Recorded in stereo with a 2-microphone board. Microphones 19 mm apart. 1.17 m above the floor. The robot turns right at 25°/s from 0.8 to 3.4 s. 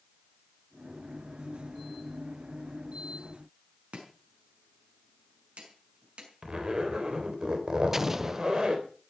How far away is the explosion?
About 0.6 m.